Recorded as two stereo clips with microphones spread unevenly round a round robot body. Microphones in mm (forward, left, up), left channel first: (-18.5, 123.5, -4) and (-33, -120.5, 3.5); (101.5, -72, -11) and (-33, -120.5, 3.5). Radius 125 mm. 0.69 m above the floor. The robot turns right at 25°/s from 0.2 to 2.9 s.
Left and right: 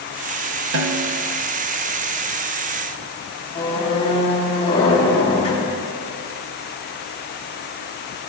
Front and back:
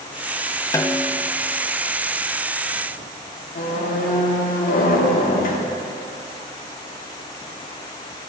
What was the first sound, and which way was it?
A snare drum, 55° right.